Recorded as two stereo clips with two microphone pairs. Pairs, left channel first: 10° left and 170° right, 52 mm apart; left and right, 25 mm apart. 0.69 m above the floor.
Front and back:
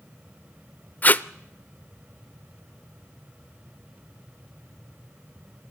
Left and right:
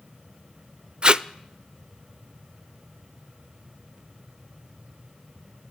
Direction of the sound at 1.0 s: 35° right.